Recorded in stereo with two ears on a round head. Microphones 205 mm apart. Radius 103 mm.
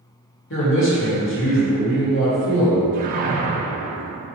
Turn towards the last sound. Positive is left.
turn(degrees=-35)  # may be behind; listen again after turning